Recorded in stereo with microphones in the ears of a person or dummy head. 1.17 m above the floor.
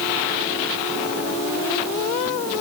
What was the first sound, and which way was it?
Only background noise.